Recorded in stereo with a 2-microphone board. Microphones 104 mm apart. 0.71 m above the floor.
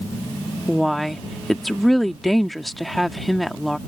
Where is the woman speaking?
Centre (ahead or behind).